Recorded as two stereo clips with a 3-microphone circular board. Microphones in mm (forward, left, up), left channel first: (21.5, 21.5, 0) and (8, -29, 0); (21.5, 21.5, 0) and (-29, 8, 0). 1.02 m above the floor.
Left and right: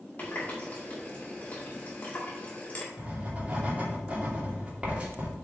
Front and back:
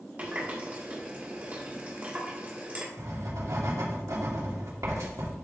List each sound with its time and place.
0.2 s a running tap: 135° left, 2 m
3.0 s writing: 170° right, 2 m